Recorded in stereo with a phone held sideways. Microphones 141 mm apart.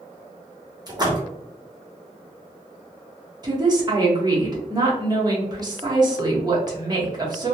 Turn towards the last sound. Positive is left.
turn(degrees=-30)  # may be behind; listen again after turning